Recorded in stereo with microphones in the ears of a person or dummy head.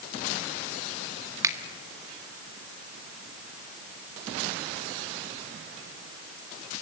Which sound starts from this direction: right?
A finger snap, at 1.4 s.